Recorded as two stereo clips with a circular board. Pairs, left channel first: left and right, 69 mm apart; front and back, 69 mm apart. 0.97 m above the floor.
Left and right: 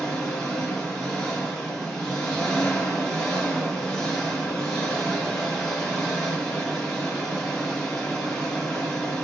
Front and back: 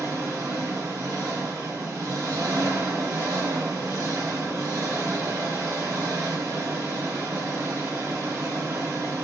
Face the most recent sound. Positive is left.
turn(degrees=175)